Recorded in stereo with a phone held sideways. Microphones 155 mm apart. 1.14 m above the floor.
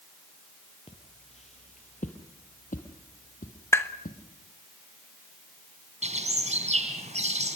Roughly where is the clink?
I don't hear a clink.